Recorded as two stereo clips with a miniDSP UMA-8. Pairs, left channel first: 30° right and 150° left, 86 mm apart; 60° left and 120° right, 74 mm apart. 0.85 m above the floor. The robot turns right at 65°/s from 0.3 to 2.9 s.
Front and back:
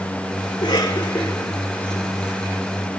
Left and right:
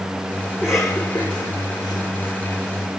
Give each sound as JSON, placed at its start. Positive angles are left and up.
{"t": 0.5, "sound": "a cough", "azimuth_deg": -45, "distance_m": 4.0}